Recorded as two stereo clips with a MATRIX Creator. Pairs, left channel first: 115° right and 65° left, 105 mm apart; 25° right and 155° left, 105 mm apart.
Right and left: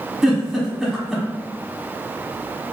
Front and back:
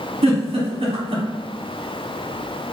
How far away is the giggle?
About 1.0 m.